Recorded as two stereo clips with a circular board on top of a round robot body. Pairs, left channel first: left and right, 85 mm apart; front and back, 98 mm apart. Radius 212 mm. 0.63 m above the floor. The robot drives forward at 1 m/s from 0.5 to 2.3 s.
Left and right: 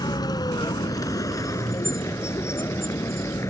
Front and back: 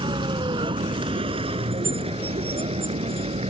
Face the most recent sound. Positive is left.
turn(degrees=150)